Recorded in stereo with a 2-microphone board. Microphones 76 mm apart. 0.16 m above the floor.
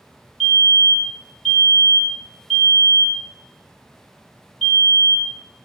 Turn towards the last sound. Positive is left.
turn(degrees=5)  # may be behind; listen again after turning